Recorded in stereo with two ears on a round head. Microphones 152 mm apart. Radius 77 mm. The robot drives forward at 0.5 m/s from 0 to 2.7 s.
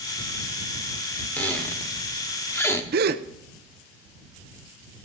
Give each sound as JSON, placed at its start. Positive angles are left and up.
{"t": 1.4, "sound": "a squeak", "side_deg": 10, "distance_m": 1.6}
{"t": 2.9, "sound": "a gasp", "side_deg": -65, "distance_m": 0.7}